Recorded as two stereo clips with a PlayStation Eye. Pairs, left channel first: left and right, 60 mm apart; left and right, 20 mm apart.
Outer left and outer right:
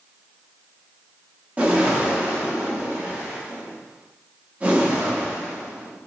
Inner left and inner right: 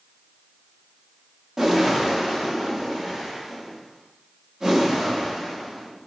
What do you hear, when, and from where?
1.6 s a whoosh: 25° right (ahead or behind), 0.6 m